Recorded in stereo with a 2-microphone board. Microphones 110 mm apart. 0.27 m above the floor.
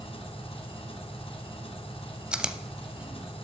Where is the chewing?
10° right (ahead or behind), 0.5 m.